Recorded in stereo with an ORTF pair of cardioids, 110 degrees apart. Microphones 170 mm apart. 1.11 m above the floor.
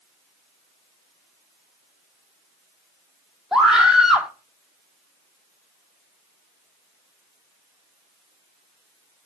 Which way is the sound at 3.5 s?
5° right.